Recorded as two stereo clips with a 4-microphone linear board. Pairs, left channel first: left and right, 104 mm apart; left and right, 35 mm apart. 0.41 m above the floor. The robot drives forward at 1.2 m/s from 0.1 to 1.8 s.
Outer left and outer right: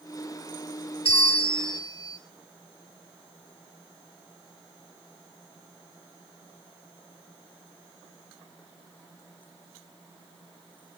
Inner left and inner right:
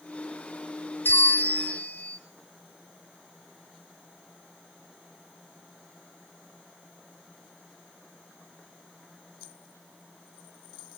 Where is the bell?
70° left (ahead or behind), 0.7 m; by 2.2 s 40° left (ahead or behind), 1.0 m.